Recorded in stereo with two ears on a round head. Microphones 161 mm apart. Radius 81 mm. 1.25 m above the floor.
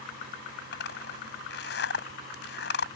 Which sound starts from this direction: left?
A zipper, at 0.7 s.